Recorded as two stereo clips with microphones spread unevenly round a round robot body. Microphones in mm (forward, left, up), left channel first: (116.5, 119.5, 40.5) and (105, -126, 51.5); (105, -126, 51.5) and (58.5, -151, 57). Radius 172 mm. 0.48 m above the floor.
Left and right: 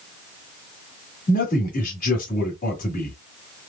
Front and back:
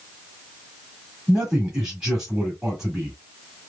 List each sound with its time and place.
1.3 s a man speaking: 125° left, 1.6 m